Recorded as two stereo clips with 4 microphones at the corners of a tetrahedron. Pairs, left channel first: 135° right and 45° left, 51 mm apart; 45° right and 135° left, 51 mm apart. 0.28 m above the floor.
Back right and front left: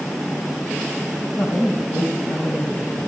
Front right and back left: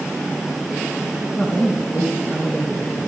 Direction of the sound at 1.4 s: 105° right.